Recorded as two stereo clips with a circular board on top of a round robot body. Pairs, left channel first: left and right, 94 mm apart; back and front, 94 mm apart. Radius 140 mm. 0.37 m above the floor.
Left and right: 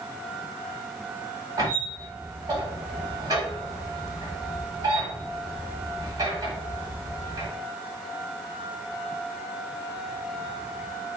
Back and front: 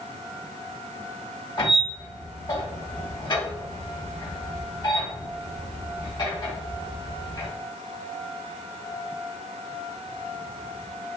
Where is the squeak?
140° right, 2.5 m.